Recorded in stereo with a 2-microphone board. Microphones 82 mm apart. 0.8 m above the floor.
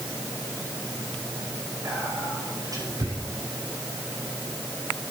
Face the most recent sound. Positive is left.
turn(degrees=-45)  # may be behind; listen again after turning